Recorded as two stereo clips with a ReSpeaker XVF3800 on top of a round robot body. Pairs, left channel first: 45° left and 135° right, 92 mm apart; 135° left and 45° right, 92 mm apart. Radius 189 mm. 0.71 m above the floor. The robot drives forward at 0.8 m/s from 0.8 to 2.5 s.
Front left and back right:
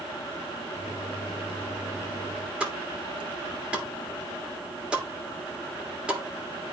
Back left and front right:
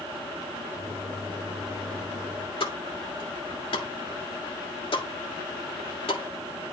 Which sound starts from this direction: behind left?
A pop, at 2.6 s.